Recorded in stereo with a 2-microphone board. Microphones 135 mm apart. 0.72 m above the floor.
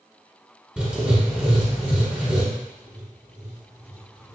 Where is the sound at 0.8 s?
10° right (ahead or behind), 1.0 m.